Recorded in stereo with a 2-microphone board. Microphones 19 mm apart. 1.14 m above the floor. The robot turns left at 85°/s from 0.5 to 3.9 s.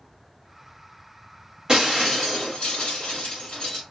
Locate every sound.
1.7 s breaking glass: 140° right, 1.6 m; by 3.8 s 40° left, 1.6 m